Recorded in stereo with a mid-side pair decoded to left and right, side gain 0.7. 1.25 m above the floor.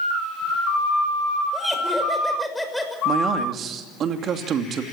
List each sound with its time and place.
1.5 s laughter: straight ahead, 5.5 m
3.0 s a man speaking: 45° right, 2.5 m